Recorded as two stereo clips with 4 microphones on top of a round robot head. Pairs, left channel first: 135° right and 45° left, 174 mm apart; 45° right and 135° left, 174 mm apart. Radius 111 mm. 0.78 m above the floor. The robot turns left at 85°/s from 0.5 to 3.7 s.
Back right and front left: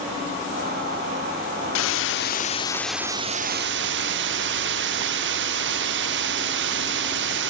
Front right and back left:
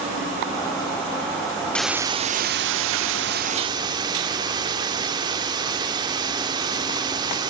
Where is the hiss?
130° right, 0.7 m; by 7.5 s 65° left, 0.7 m.